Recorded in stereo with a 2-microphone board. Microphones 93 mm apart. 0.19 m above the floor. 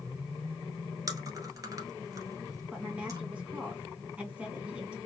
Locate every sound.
1.1 s chewing: 35° right (ahead or behind), 1.3 m
2.7 s a woman speaking: 10° right (ahead or behind), 2 m